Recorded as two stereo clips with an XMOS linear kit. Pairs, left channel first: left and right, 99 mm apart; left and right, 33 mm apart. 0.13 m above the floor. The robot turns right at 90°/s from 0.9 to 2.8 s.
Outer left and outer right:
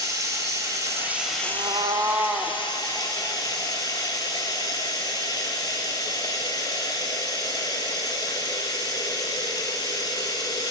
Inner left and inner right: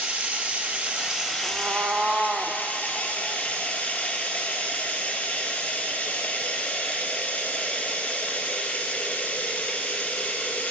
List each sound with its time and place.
0.0 s running water: 35° right, 1.4 m; by 10.7 s 135° left, 1.4 m
1.4 s a cat meowing: 95° right, 0.7 m; by 2.6 s 10° left, 0.7 m